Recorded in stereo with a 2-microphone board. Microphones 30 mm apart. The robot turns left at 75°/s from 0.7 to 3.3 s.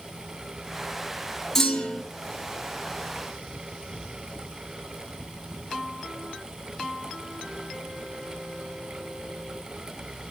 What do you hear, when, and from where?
1.6 s a clunk: 170° left, 4 m; by 2.0 s 130° left, 4 m